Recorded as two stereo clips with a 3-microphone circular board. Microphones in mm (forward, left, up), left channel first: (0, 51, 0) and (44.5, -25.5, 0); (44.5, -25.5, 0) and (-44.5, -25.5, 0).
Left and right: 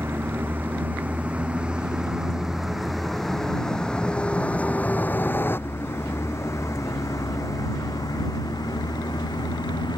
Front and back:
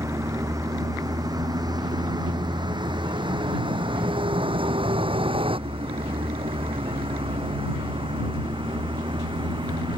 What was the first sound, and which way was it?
A vehicle, 125° right.